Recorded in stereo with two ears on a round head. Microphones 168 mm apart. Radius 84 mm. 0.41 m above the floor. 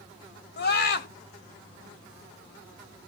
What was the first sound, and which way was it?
A scream, 55° left (ahead or behind).